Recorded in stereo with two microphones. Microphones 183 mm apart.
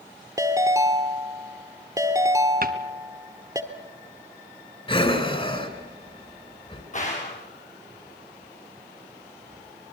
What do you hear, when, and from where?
0.4 s a ringtone: 20° right (ahead or behind), 1.6 m
2.6 s a cupboard door: 55° right (ahead or behind), 1.2 m
4.9 s breathing: 30° left (ahead or behind), 2.5 m
6.9 s a gunshot: 40° left (ahead or behind), 5.5 m